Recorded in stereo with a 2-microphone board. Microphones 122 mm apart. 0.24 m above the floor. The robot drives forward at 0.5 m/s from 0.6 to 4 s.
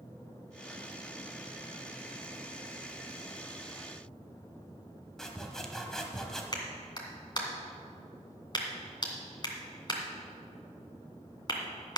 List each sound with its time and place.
5.2 s sawing: 5° left (ahead or behind), 1.3 m
6.5 s a clap: 35° left (ahead or behind), 2 m